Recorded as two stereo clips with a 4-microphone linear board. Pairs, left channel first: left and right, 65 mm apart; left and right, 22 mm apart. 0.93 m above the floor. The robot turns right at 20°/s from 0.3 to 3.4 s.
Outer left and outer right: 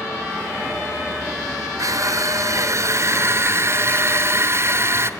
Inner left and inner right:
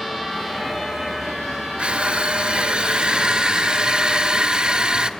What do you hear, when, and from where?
1.8 s crushing: 85° right, 0.9 m; by 5.1 s 50° right, 0.9 m